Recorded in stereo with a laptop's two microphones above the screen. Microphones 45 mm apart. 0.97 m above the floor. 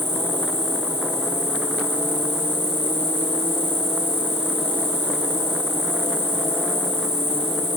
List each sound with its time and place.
0.0 s an insect: 65° right (ahead or behind), 3 m